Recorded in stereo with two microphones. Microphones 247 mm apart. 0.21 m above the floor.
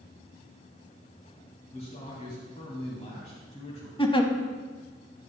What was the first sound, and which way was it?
A man speaking, 25° left (ahead or behind).